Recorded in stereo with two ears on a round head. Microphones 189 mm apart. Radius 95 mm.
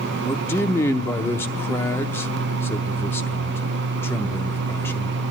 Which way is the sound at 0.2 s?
10° left (ahead or behind).